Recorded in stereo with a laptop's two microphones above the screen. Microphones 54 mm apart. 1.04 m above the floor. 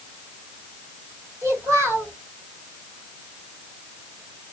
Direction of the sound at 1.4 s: 60° right (ahead or behind).